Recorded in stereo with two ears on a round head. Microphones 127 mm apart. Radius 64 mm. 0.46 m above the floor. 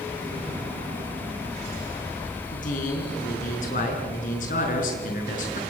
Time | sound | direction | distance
2.5 | a man speaking | 65° left (ahead or behind) | 7 m